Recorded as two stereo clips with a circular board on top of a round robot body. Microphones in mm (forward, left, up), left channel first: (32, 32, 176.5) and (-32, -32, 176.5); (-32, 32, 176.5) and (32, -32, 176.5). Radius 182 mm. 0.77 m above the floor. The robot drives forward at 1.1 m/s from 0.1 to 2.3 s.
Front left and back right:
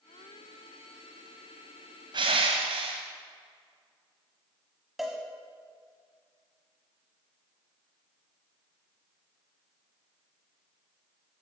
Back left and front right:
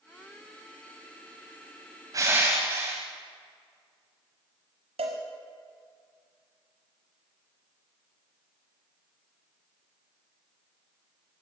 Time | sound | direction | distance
2.1 | crushing | 95° right | 0.8 m
5.0 | a cowbell | 45° right | 0.8 m